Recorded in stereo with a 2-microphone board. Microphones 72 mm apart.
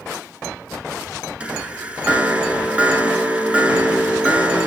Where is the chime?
20° right (ahead or behind), 0.9 m.